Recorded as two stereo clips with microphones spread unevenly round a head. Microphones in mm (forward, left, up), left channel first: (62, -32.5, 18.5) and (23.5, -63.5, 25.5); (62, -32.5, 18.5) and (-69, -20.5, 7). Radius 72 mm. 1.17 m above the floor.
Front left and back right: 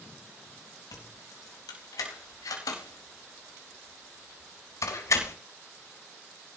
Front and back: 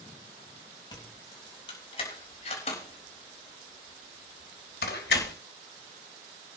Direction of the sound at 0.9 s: 60° left.